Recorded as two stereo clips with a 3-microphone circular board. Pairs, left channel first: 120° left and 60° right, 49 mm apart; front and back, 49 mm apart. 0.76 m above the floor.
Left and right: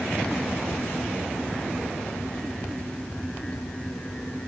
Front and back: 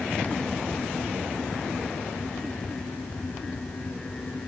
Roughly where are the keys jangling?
I don't hear keys jangling.